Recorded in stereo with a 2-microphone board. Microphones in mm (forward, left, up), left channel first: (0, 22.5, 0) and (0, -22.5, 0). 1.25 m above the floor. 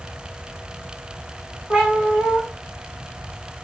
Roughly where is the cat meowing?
Right.